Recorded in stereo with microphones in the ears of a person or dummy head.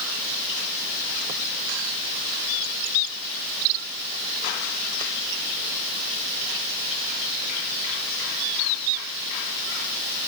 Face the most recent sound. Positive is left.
No sound to turn to.